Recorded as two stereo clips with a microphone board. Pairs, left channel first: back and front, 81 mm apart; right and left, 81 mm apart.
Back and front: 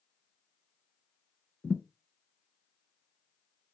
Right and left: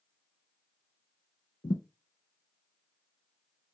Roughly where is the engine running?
I don't hear an engine running.